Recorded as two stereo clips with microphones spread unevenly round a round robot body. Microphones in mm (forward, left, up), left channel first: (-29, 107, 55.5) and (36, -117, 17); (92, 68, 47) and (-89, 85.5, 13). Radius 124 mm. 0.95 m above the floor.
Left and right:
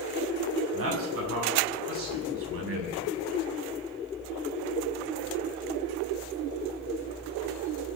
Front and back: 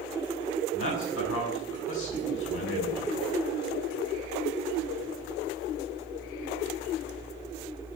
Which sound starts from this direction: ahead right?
A man speaking, at 0.7 s.